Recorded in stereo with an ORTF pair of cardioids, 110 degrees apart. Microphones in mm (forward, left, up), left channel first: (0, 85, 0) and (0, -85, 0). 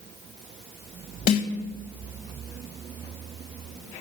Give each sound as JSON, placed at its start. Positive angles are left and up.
{"t": 1.3, "sound": "a snare drum", "azimuth_deg": 55, "distance_m": 2.0}